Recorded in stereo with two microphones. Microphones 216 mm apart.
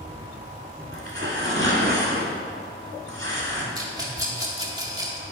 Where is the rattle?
15° right (ahead or behind), 1.1 m.